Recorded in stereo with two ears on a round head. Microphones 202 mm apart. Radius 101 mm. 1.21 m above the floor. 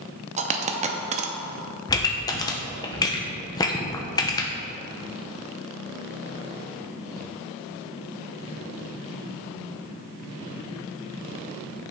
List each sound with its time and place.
0.4 s a dropped coin: 30° right (ahead or behind), 0.7 m
1.9 s a pop: 15° left (ahead or behind), 0.8 m